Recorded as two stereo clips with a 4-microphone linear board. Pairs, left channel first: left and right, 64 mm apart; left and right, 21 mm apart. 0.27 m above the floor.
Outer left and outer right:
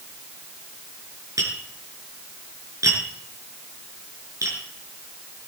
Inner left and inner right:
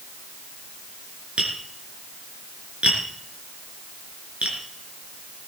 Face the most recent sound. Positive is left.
turn(degrees=-65)  # may be behind; listen again after turning